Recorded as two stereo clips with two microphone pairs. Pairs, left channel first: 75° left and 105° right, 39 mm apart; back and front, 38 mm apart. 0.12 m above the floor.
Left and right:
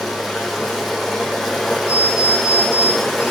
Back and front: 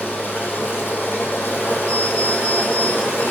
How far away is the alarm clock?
About 6.5 m.